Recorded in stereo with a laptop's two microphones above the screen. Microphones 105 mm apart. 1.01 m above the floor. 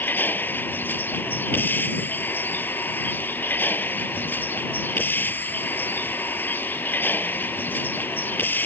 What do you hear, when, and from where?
0.0 s a vehicle: 20° left (ahead or behind)